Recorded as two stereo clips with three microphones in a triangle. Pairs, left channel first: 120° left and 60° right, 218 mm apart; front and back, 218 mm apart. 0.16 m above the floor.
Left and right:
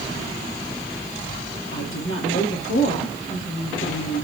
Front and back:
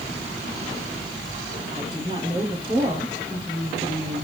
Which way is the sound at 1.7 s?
110° left.